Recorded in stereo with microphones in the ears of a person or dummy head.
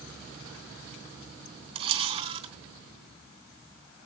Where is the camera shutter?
30° right (ahead or behind), 3 m.